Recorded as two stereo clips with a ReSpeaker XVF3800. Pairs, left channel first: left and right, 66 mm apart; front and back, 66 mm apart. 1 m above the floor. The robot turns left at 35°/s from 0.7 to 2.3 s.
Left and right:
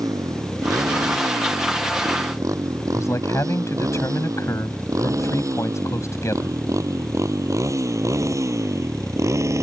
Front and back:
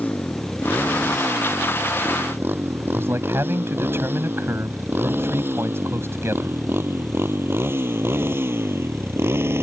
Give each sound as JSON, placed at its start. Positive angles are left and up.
{"t": 0.0, "sound": "a motorcycle", "azimuth_deg": -65}
{"t": 2.9, "sound": "a man speaking", "azimuth_deg": 130}